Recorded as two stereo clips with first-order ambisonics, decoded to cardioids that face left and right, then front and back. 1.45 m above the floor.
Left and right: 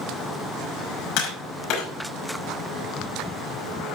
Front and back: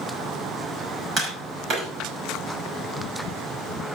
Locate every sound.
1.2 s tapping: 120° left, 5.5 m